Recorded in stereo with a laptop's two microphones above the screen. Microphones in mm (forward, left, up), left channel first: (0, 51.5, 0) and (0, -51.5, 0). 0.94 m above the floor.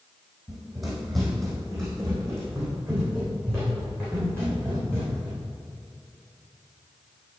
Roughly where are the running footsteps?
Centre.